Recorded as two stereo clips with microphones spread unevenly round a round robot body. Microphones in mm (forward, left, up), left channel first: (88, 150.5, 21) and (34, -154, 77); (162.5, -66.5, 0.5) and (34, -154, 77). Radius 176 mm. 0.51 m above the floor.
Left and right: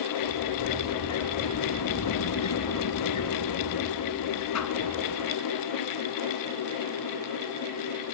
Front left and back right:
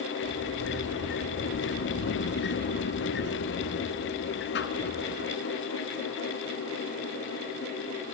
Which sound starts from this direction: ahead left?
A sliding door, at 0.2 s.